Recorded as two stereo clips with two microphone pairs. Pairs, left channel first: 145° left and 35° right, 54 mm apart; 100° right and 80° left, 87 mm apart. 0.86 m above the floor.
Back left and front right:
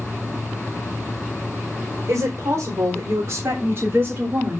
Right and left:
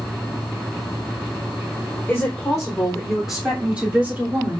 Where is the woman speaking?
25° right, 4 m; by 4.6 s 20° left, 2.5 m.